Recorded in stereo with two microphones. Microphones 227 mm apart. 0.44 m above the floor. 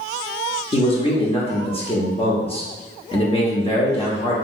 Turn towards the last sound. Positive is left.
turn(degrees=25)  # may be behind; listen again after turning